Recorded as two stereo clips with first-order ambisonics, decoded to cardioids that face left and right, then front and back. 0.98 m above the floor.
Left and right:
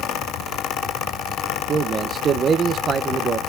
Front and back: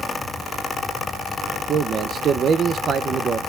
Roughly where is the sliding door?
No sliding door in this recording.